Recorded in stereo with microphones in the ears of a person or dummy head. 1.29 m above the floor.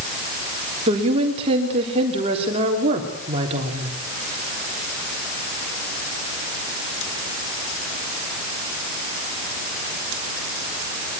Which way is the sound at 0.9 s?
35° right (ahead or behind).